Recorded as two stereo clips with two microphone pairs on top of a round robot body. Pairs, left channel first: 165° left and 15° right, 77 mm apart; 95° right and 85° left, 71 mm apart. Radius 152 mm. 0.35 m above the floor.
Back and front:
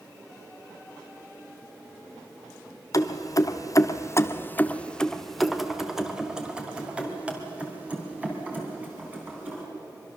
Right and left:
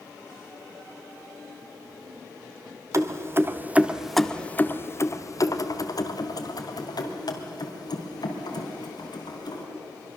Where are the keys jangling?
125° left, 1.4 m; by 9.6 s 85° right, 4.5 m.